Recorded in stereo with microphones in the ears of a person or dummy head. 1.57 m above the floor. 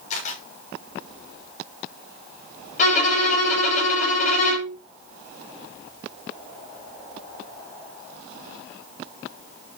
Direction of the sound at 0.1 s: 45° left (ahead or behind).